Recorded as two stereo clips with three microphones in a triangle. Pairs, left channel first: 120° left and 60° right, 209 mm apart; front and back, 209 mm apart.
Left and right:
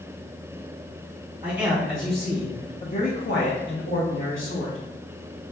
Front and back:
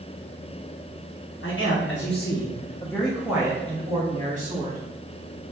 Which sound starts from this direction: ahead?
A man speaking, at 1.4 s.